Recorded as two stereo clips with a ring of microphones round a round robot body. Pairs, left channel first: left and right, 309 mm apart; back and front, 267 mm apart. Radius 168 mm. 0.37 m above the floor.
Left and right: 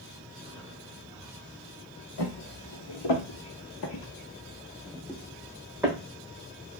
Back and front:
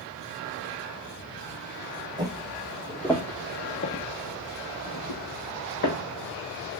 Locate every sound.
2.2 s footsteps: 75° left, 1.1 m; by 6.0 s 170° right, 1.3 m